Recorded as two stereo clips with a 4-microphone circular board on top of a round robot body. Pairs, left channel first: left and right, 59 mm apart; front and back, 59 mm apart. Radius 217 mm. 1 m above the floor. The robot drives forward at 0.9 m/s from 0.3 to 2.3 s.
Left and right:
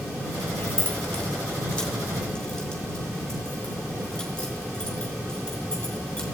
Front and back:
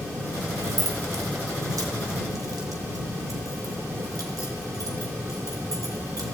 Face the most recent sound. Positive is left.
turn(degrees=175)